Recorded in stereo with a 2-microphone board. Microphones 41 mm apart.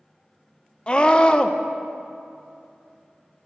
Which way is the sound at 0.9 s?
25° left (ahead or behind).